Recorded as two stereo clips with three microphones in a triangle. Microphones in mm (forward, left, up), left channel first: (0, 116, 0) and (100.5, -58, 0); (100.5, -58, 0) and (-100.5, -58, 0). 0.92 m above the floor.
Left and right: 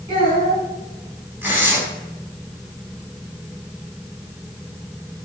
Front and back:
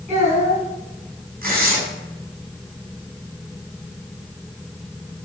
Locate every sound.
0.1 s a child speaking: 125° right, 5.5 m
1.4 s tearing paper: 140° right, 5 m